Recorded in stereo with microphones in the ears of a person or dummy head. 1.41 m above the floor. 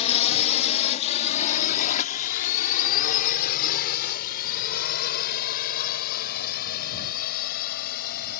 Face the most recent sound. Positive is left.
turn(degrees=50)  # may be behind; listen again after turning